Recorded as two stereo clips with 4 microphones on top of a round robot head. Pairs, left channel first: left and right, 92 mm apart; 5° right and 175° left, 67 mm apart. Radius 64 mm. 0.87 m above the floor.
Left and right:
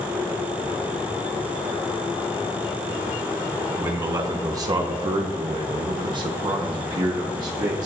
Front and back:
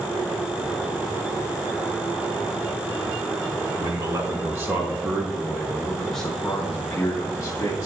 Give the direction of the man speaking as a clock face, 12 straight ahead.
5 o'clock.